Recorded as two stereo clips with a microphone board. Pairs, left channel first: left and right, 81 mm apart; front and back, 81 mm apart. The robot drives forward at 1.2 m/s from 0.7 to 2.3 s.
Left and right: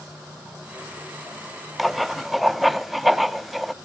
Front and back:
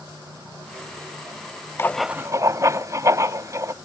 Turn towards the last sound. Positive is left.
turn(degrees=180)